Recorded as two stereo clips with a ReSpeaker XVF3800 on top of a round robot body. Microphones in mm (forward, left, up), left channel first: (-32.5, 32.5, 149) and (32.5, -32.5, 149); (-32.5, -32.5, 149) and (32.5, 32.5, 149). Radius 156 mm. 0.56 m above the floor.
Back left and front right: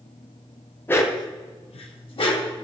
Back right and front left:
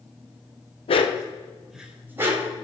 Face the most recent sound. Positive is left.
turn(degrees=100)